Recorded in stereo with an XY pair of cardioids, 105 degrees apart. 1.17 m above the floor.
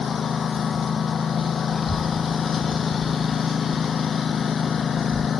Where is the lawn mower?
45° left.